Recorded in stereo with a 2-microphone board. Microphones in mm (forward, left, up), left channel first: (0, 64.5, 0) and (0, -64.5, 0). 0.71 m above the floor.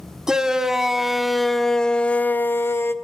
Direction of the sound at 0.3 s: 5° right (ahead or behind).